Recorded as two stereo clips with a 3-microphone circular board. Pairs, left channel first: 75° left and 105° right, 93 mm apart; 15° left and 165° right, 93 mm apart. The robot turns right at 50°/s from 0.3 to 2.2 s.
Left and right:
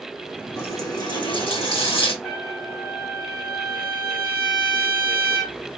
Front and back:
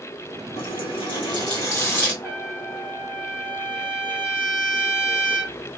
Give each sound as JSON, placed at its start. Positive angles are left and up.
{"t": 0.6, "sound": "a running tap", "azimuth_deg": 15, "distance_m": 1.9}
{"t": 2.2, "sound": "a trumpet", "azimuth_deg": 115, "distance_m": 1.8}